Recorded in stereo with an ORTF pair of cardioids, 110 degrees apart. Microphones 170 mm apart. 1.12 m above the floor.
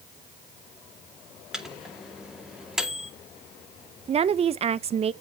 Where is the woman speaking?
35° right, 0.6 m.